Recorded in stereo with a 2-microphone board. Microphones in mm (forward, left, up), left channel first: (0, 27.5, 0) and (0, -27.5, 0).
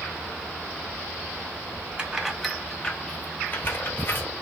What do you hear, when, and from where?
2.0 s keys jangling: 15° right (ahead or behind), 0.7 m; by 4.3 s 40° left (ahead or behind), 1.1 m